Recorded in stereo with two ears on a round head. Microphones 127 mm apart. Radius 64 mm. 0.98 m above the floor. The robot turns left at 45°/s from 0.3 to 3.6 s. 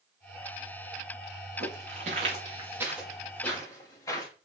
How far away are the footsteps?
About 5.5 m.